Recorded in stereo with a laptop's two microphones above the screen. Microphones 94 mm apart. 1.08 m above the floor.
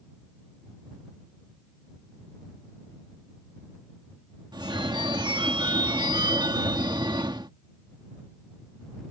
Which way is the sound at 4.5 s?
50° right (ahead or behind).